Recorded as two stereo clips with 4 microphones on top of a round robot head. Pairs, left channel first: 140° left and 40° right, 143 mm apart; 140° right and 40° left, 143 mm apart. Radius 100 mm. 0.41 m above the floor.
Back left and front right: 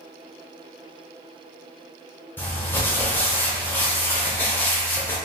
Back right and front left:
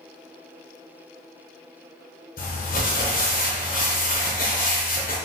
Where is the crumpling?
145° right, 1.0 m.